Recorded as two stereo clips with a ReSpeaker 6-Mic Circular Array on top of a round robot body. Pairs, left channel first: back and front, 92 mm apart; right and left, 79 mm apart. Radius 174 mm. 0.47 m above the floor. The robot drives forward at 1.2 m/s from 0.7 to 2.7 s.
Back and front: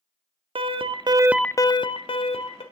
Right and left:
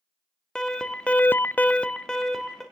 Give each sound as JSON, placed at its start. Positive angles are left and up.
{"t": 0.6, "sound": "an alarm", "azimuth_deg": -10, "distance_m": 0.9}